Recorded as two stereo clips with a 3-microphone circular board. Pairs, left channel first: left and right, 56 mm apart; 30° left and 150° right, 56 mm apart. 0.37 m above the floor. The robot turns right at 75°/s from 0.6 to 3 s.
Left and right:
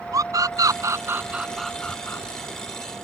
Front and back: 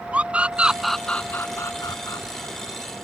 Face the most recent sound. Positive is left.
turn(degrees=100)